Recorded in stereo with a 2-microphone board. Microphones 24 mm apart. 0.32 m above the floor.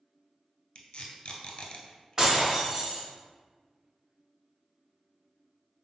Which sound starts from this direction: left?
Tape being pulled, at 0.8 s.